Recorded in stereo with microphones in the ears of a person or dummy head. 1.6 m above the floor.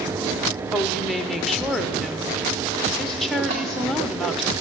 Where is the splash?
40° right (ahead or behind), 2.5 m.